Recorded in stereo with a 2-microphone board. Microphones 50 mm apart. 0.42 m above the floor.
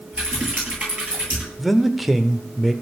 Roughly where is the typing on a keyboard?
Right.